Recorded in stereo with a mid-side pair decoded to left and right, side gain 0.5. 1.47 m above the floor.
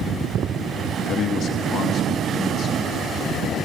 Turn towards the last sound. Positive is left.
turn(degrees=60)